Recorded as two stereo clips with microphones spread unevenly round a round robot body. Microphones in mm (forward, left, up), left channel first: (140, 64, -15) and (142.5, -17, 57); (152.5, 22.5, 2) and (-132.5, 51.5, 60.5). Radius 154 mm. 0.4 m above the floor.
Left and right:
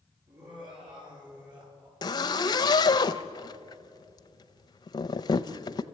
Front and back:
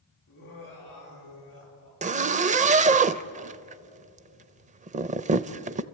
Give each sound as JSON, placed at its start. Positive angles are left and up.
{"t": 0.3, "sound": "laughter", "azimuth_deg": -60, "distance_m": 9.5}
{"t": 2.0, "sound": "a zipper", "azimuth_deg": 105, "distance_m": 0.6}